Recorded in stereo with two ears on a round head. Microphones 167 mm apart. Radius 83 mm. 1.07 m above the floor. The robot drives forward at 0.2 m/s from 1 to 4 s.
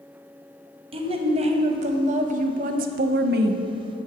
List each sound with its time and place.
0.9 s a woman speaking: 30° right (ahead or behind), 0.9 m; by 3.6 s 60° right (ahead or behind), 0.5 m